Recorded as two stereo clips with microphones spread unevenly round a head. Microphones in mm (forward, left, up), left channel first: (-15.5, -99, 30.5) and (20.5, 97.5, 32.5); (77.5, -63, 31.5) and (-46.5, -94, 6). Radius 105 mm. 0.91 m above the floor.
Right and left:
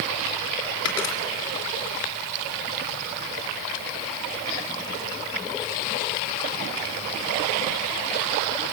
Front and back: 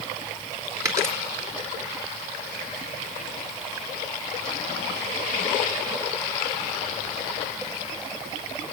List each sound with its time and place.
0.8 s a dropped coin: 95° right, 3.5 m